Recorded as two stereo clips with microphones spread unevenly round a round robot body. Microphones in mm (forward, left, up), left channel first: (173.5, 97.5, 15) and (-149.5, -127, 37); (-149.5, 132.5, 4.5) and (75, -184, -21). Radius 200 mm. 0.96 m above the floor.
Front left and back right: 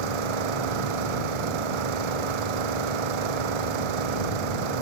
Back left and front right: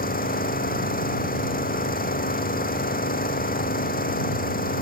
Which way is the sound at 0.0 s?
165° right.